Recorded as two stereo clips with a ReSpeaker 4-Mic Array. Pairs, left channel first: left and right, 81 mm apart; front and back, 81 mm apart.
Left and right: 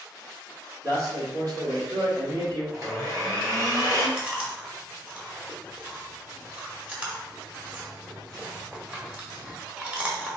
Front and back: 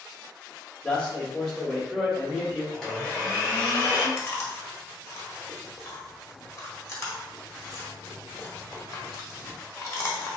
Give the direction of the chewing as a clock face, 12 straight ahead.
1 o'clock.